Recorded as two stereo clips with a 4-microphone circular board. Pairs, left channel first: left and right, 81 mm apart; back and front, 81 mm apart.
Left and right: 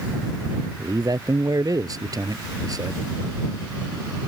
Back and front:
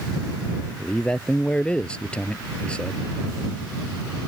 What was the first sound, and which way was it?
A man speaking, 105° right.